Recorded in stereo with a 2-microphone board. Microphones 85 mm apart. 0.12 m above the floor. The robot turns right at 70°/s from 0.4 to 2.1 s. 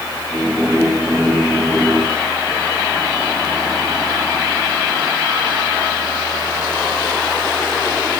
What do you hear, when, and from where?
Only background noise.